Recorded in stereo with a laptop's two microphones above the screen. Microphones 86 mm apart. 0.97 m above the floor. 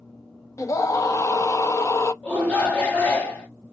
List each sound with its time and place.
0.6 s a scream: 40° left (ahead or behind), 0.8 m
2.2 s a shout: 20° left (ahead or behind), 1.5 m